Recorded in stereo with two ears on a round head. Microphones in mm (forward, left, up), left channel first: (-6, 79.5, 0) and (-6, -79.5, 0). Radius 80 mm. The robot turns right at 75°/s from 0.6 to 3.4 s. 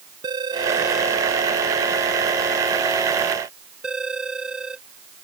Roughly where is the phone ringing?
Right.